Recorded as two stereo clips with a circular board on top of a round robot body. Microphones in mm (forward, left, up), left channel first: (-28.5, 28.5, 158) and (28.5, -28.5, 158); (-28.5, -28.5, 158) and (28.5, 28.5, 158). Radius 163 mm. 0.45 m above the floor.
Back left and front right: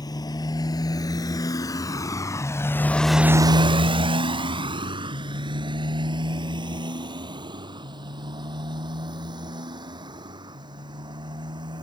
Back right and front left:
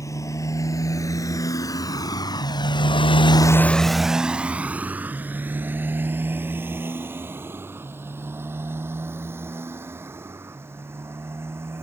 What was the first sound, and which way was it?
A motorcycle, 175° left.